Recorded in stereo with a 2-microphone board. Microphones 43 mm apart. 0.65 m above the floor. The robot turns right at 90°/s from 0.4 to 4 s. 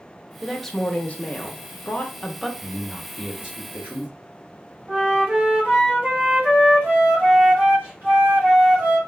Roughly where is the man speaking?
Behind left.